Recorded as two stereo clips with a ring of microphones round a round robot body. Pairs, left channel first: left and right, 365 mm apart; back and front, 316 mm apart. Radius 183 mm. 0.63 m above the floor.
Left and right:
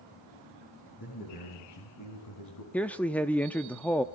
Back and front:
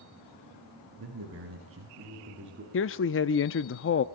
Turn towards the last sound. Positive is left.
turn(degrees=175)